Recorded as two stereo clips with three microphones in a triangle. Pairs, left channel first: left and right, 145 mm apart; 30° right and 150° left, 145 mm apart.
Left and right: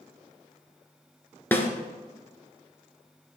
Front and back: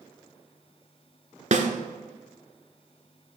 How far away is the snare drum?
About 0.6 m.